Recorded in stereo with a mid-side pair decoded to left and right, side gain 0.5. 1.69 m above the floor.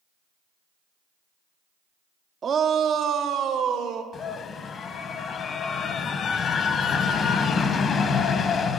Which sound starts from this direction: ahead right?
A shout, at 2.4 s.